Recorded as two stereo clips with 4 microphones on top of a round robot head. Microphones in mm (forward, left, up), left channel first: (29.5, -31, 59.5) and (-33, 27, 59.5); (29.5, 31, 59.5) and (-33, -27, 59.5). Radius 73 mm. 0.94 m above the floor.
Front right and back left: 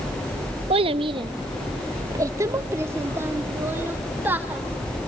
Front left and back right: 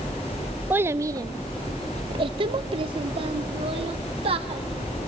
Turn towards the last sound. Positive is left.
turn(degrees=-150)